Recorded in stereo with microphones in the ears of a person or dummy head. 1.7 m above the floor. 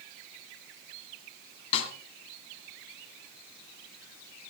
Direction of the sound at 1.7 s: 35° left (ahead or behind).